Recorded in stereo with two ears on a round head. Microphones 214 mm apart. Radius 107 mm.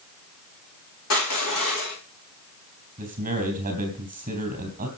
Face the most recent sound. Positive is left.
turn(degrees=-35)  # may be behind; listen again after turning